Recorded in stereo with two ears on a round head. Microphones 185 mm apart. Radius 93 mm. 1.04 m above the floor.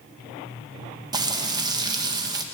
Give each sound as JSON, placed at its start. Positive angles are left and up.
{"t": 1.1, "sound": "frying", "side_deg": -20, "distance_m": 0.8}